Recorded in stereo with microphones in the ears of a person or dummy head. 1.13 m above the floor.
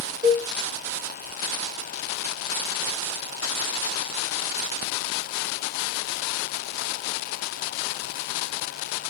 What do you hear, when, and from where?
0.2 s a cowbell: 20° right (ahead or behind), 1.3 m